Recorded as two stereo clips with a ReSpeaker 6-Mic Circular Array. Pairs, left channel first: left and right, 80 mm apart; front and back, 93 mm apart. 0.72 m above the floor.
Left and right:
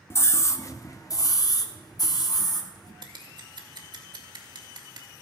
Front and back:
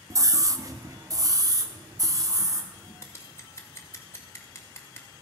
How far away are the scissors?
About 1.9 m.